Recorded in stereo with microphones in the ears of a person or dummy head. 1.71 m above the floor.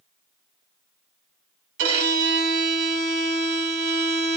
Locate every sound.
1.8 s a violin: 65° right (ahead or behind), 1.1 m